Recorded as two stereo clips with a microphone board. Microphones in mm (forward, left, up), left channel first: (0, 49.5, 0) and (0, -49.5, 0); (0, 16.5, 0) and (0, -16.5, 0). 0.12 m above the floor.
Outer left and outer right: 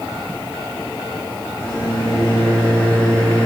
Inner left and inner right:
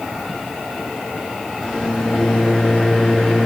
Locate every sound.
1.6 s a microwave: 35° left (ahead or behind), 1.7 m